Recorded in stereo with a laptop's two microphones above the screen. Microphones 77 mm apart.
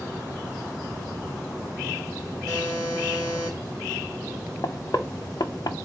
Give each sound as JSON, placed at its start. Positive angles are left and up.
{"t": 2.5, "sound": "a buzzer", "side_deg": 15, "distance_m": 3.0}
{"t": 4.6, "sound": "knocking", "side_deg": 60, "distance_m": 0.5}